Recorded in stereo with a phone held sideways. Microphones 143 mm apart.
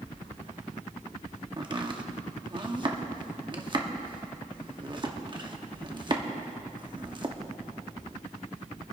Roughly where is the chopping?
Right.